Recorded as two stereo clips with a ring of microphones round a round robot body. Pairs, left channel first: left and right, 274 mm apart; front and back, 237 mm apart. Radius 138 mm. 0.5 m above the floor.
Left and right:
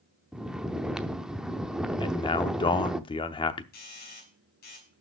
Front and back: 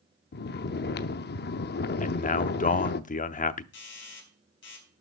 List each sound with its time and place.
0.3 s snoring: 5° right, 0.6 m
2.0 s a man speaking: 30° left, 0.8 m
3.7 s a doorbell: 35° left, 4.5 m